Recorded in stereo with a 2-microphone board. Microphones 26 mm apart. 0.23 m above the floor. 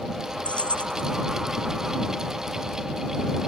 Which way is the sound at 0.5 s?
60° left (ahead or behind).